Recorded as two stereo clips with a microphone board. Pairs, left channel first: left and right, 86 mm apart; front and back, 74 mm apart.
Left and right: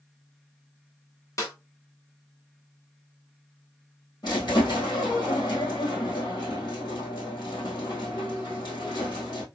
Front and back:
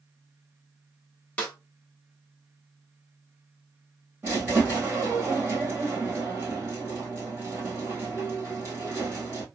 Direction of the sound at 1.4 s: 65° left.